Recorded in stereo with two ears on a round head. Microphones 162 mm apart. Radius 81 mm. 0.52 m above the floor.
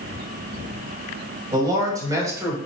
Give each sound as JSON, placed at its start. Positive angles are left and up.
{"t": 1.5, "sound": "a man speaking", "side_deg": -25, "distance_m": 3.5}